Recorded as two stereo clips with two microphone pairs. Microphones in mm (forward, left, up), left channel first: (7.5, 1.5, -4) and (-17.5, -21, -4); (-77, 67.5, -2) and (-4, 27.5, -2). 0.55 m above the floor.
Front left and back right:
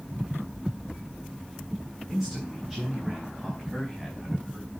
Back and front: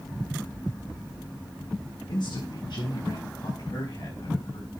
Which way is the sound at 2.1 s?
130° left.